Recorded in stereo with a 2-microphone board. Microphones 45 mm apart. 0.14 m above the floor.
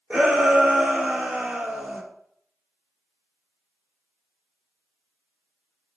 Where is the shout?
25° right (ahead or behind), 4.5 m.